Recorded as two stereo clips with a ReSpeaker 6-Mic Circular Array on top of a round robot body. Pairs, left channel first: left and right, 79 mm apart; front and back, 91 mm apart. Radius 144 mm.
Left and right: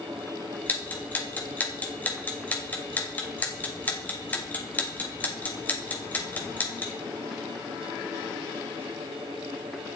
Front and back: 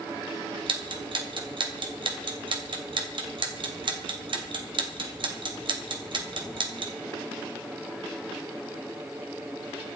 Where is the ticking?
160° left, 2.5 m.